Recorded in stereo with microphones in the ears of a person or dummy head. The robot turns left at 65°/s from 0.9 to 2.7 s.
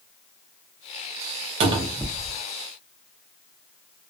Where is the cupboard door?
145° right, 0.5 m; by 2.4 s 165° left, 0.5 m.